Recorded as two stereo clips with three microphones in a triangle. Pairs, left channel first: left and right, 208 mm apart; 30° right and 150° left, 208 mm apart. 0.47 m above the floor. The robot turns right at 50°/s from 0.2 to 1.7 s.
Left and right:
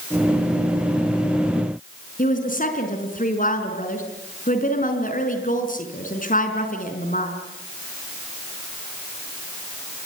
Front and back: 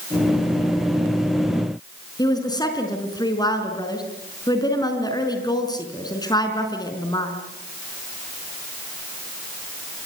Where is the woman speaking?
40° left, 5 m.